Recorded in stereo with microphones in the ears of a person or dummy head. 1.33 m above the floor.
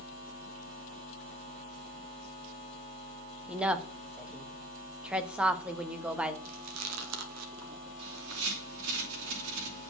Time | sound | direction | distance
3.5 | a woman speaking | 5° right (ahead or behind) | 1.5 m
6.5 | chewing | 80° right | 2.5 m
8.0 | a bird | 85° right | 4 m